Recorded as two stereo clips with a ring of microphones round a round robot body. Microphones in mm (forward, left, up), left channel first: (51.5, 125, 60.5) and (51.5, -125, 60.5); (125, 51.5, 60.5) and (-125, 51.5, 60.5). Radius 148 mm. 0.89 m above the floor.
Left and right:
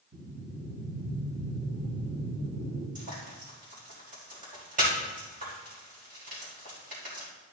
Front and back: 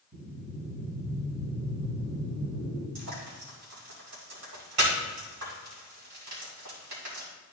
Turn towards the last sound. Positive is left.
turn(degrees=-155)